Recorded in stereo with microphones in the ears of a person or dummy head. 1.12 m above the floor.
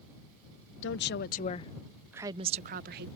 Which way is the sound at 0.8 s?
55° left (ahead or behind).